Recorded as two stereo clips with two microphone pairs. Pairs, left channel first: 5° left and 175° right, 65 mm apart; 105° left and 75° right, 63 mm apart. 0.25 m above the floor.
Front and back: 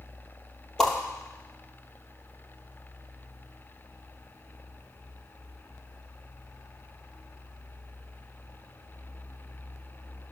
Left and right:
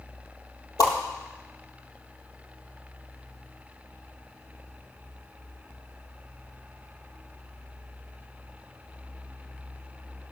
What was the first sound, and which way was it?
A whoosh, 85° left.